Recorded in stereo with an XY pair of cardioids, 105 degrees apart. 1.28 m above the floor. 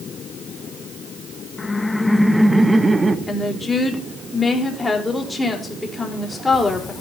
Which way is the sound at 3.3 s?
15° left.